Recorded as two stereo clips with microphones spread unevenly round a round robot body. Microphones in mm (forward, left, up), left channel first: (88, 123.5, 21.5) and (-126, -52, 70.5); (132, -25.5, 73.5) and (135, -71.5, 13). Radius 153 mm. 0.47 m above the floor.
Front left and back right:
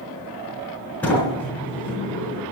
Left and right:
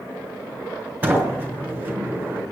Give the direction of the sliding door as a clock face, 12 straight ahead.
1 o'clock.